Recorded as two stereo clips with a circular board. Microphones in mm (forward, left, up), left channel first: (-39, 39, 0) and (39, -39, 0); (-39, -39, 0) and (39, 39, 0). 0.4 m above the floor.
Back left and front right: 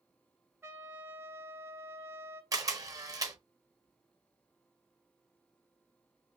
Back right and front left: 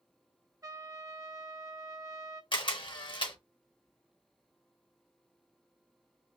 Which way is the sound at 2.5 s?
100° right.